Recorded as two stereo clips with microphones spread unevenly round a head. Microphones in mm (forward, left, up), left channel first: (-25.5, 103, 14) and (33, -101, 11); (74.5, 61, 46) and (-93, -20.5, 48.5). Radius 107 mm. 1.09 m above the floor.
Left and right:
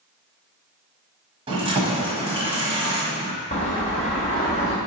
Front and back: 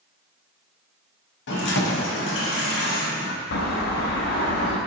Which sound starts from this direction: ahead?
Keys jangling, at 1.5 s.